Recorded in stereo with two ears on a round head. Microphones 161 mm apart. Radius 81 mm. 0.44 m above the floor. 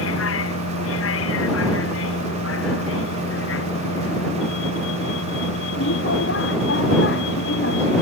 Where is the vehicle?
85° left; by 8.0 s 70° left (ahead or behind).